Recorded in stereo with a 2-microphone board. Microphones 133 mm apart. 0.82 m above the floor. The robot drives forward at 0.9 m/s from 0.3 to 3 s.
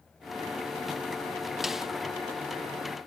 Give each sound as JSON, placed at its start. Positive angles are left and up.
{"t": 1.6, "sound": "a snare drum", "side_deg": 0}